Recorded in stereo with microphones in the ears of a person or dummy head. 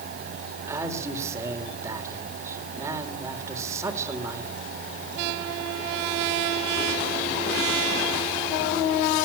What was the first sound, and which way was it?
A man speaking, 15° right (ahead or behind).